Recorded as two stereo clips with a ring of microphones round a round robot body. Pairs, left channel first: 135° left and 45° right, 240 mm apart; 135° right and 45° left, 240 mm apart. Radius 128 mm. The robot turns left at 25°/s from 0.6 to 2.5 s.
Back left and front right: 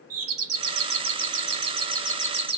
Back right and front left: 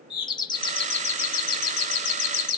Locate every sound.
0.1 s a doorbell: 65° right, 2 m; by 2.6 s 110° right, 2 m